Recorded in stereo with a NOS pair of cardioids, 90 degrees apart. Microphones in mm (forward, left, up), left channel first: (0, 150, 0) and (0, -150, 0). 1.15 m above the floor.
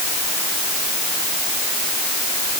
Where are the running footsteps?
No running footsteps in this recording.